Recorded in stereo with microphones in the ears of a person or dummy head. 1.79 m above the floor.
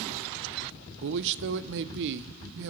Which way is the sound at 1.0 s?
65° right (ahead or behind).